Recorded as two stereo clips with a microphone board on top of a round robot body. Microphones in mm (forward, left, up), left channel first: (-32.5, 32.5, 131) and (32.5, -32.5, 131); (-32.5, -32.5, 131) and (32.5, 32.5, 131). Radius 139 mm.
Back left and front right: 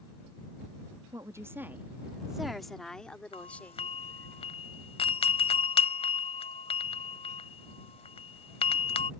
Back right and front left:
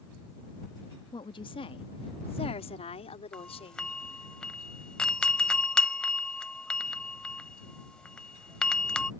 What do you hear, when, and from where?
1.1 s a woman speaking: 100° right; by 4.3 s 155° right
3.3 s a doorbell: 145° left